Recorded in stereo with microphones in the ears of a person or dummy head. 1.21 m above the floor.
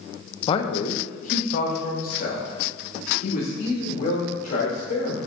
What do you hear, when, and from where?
0.5 s a man speaking: 30° left (ahead or behind), 0.6 m; by 5.2 s 55° left (ahead or behind), 3.5 m